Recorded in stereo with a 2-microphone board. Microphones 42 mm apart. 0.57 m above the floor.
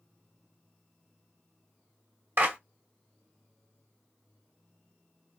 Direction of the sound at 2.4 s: 60° right (ahead or behind).